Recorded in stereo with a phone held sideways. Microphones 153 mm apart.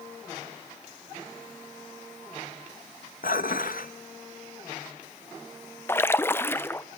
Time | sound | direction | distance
3.2 | dishes clattering | 75° left (ahead or behind) | 0.8 m
5.9 | a splash | 15° left (ahead or behind) | 0.7 m